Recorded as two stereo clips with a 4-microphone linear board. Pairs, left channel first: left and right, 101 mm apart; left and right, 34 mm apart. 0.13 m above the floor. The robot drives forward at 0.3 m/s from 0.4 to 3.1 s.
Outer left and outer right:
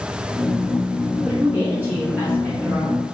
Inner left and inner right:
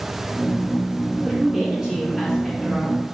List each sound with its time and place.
1.2 s a woman speaking: 20° right (ahead or behind), 1.4 m